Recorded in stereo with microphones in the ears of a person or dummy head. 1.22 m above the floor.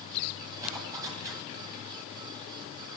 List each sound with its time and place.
0.6 s a zipper: 10° right (ahead or behind), 9.5 m